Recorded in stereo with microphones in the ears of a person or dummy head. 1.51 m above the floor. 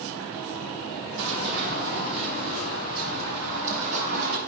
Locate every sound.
1.2 s running footsteps: 55° right (ahead or behind), 2.5 m; by 4.4 s 50° right (ahead or behind), 4 m